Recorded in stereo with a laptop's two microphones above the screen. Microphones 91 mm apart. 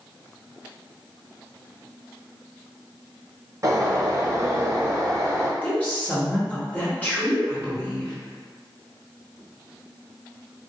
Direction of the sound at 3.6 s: 40° right (ahead or behind).